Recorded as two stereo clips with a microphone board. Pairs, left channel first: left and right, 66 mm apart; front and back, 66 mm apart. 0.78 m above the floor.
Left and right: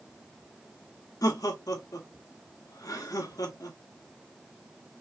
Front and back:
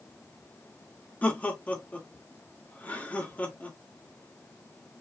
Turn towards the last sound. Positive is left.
turn(degrees=65)